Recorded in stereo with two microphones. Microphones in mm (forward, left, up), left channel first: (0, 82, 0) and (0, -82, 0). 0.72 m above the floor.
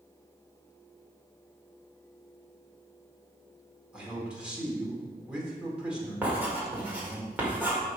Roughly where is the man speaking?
Centre.